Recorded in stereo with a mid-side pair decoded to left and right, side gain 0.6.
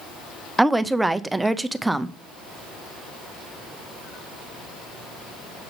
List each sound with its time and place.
0.6 s a woman speaking: 10° right, 0.5 m